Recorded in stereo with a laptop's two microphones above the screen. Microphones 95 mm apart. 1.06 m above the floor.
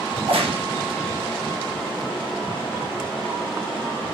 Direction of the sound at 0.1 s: 70° right (ahead or behind).